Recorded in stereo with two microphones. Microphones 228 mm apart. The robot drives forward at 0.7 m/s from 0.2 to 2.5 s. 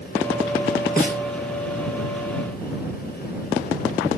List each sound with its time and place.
1.0 s a snare drum: 40° left (ahead or behind), 1.3 m; by 1.2 s 45° left (ahead or behind), 1.2 m